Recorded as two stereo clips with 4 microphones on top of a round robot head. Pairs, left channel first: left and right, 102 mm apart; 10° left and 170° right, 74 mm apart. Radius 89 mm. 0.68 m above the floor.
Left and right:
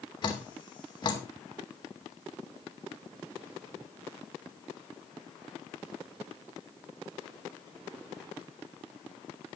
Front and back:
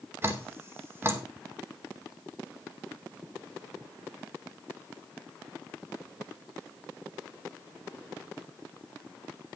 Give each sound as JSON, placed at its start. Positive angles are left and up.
{"t": 0.2, "sound": "dripping", "azimuth_deg": 135, "distance_m": 2.5}